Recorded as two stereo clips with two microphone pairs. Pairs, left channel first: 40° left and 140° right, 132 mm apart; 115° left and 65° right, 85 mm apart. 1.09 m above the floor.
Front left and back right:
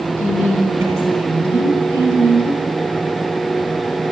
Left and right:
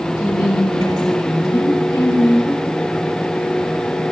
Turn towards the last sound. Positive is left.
turn(degrees=150)